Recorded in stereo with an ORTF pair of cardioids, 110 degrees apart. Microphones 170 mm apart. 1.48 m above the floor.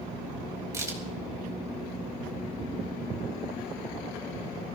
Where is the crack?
20° right, 4.5 m.